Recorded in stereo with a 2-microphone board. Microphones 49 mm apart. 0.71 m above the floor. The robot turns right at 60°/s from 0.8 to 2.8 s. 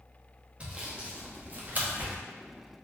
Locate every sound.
0.6 s sawing: 25° right (ahead or behind), 0.6 m; by 2.2 s 30° right (ahead or behind), 0.6 m